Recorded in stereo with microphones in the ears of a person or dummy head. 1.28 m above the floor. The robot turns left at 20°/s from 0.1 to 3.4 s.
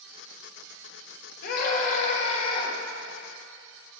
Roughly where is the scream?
Left.